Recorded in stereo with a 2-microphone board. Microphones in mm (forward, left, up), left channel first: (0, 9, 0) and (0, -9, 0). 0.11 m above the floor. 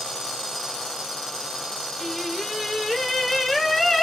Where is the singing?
15° left (ahead or behind), 1.2 m.